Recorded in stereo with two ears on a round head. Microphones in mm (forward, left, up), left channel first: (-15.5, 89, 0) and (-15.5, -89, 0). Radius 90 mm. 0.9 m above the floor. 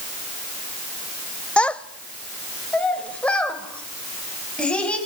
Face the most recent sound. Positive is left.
turn(degrees=5)  # may be behind; listen again after turning